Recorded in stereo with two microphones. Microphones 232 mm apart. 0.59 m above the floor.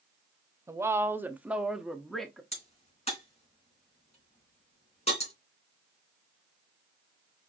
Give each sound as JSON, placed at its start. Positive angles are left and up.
{"t": 0.7, "sound": "a woman speaking", "side_deg": -10, "distance_m": 0.7}
{"t": 2.5, "sound": "a crack", "side_deg": 30, "distance_m": 3.0}